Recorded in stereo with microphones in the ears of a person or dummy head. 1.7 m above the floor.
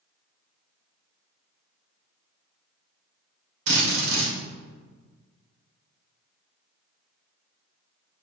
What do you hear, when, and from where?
3.7 s a drill: 65° right (ahead or behind), 3 m